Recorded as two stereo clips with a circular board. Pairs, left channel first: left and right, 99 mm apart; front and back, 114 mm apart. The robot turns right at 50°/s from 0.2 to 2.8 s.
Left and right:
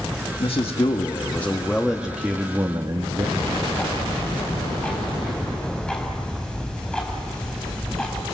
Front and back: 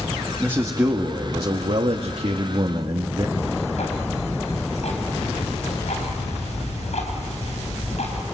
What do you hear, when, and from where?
0.4 s a man speaking: 105° left, 1.3 m; by 3.3 s 135° right, 1.3 m
3.4 s ticking: 10° left, 4.5 m